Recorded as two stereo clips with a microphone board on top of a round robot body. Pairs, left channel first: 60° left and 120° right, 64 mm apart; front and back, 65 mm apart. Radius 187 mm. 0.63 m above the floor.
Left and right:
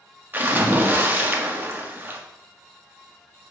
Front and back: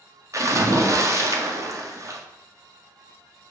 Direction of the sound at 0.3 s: 170° right.